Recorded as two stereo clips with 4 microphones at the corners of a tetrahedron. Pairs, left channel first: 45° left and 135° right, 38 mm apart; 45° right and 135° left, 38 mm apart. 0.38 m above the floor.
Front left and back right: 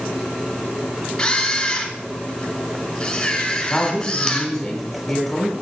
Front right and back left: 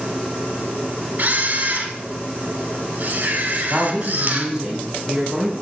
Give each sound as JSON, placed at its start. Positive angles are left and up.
{"t": 1.2, "sound": "a camera shutter", "azimuth_deg": 110, "distance_m": 0.9}
{"t": 3.7, "sound": "a woman speaking", "azimuth_deg": 115, "distance_m": 1.4}